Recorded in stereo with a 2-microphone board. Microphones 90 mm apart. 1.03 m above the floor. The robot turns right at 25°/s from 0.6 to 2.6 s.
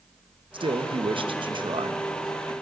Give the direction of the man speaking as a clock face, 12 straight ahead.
3 o'clock.